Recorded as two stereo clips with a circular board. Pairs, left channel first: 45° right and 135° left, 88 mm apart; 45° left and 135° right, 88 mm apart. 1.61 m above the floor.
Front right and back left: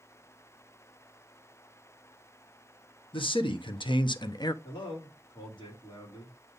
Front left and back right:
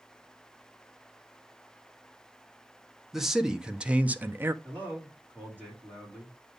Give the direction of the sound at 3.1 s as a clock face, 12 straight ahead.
2 o'clock.